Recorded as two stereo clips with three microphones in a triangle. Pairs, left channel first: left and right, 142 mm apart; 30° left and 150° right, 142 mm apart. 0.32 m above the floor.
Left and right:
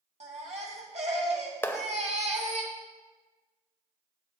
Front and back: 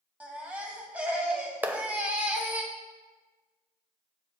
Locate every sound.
0.2 s a baby crying: 70° right, 1.6 m
1.6 s a clap: 145° left, 0.7 m